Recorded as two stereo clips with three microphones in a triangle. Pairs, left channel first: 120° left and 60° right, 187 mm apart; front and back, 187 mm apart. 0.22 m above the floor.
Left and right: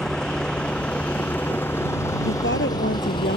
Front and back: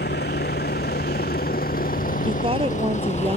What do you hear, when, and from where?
0.0 s a vehicle: 35° left; by 3.4 s 60° left
2.3 s a woman speaking: 120° left